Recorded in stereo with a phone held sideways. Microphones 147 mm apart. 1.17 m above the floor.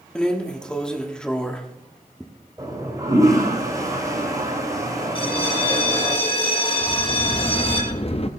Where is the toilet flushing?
25° right (ahead or behind), 4 m.